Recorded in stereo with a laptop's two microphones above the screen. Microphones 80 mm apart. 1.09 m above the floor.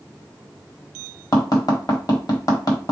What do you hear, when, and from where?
1.3 s tapping: 55° left (ahead or behind), 1.3 m